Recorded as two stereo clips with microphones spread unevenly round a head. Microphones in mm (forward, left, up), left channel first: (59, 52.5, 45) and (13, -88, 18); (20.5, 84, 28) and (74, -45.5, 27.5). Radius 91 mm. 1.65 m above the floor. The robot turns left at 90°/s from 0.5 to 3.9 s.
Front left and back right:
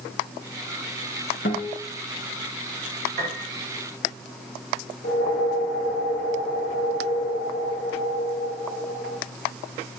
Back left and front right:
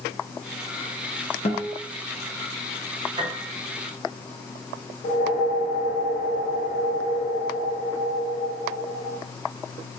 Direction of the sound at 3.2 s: 100° right.